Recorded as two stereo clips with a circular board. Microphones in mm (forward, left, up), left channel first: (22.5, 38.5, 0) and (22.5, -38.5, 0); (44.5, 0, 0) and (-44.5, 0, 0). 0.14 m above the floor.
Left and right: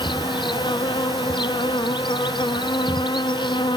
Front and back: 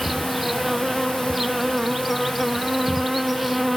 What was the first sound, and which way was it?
An insect, 90° left.